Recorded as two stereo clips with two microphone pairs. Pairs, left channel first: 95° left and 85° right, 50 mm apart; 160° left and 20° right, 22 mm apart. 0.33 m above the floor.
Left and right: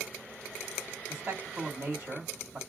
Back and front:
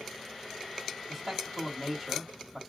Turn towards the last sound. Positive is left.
turn(degrees=-90)